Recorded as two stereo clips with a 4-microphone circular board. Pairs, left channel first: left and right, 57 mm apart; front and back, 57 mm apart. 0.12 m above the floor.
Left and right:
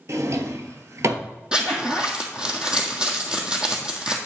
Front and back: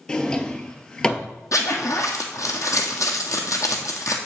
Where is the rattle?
No rattle in this recording.